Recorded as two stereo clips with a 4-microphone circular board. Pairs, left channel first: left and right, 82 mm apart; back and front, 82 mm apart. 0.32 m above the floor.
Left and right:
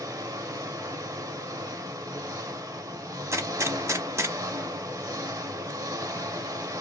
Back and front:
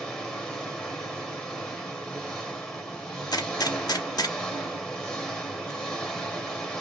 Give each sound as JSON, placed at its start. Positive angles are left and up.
{"t": 0.0, "sound": "an engine running", "azimuth_deg": -100, "distance_m": 0.8}
{"t": 3.3, "sound": "a gunshot", "azimuth_deg": -145, "distance_m": 0.6}